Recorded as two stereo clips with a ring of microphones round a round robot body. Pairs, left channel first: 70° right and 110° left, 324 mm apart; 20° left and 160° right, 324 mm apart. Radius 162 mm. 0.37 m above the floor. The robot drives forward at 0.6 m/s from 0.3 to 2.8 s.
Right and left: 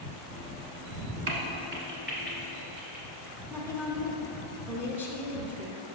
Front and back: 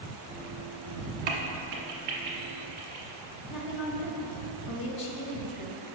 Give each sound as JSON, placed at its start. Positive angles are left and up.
{"t": 1.3, "sound": "a crack", "azimuth_deg": 165, "distance_m": 1.0}
{"t": 3.5, "sound": "a woman speaking", "azimuth_deg": 30, "distance_m": 0.9}